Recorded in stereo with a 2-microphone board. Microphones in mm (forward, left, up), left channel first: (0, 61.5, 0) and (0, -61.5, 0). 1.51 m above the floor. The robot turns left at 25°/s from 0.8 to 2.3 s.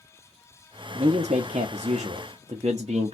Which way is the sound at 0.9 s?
80° right.